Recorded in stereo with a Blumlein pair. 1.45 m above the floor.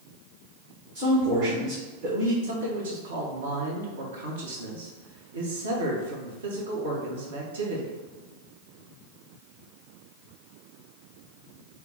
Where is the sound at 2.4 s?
65° right, 1.2 m.